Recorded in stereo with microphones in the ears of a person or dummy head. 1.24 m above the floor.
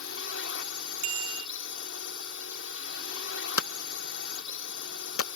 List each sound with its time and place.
0.0 s a drone: 75° left (ahead or behind)
1.0 s a bicycle bell: 35° right (ahead or behind)
3.6 s hammering: 85° left